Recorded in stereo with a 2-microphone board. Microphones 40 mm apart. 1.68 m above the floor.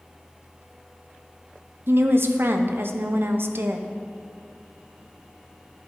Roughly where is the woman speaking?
Right.